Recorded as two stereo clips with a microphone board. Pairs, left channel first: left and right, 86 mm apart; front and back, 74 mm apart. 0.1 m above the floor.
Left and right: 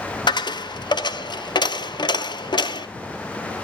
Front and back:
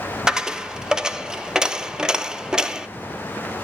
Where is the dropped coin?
100° left, 0.5 m.